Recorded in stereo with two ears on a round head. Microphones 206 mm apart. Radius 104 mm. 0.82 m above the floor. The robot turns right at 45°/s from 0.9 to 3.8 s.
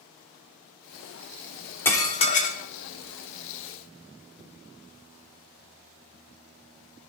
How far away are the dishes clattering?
About 1.4 m.